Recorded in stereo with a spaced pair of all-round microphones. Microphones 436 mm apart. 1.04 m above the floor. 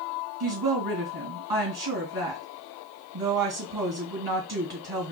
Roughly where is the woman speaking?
Right.